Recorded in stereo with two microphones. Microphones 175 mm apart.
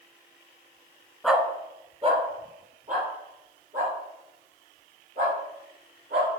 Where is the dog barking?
Centre (ahead or behind), 0.9 m; by 6.3 s 60° right (ahead or behind), 6.5 m.